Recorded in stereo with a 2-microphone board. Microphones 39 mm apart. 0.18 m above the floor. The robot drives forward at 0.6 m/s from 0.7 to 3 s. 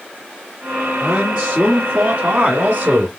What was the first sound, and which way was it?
A man speaking, 30° right (ahead or behind).